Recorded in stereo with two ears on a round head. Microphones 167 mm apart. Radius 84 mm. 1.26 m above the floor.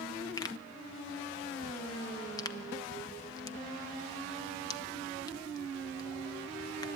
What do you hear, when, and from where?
0.4 s a pop: 20° left (ahead or behind), 1.1 m